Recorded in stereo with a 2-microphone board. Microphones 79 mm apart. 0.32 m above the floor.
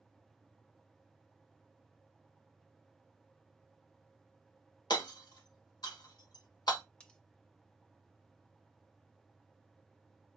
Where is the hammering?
65° left (ahead or behind), 1.1 m.